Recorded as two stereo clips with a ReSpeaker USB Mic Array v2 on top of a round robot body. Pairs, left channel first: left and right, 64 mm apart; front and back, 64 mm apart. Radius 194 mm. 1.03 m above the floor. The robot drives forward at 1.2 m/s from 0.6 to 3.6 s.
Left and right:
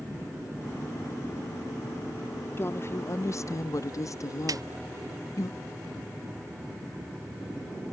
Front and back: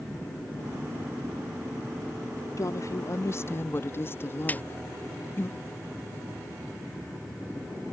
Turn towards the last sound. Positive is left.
turn(degrees=-65)